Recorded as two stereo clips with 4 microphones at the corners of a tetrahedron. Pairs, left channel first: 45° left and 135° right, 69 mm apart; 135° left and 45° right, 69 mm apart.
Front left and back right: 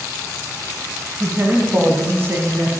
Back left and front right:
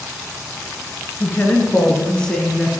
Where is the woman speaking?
175° left, 2.0 m; by 2.7 s 135° right, 1.7 m.